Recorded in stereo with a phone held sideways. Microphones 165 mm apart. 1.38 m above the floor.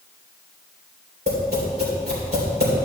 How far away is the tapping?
About 3 m.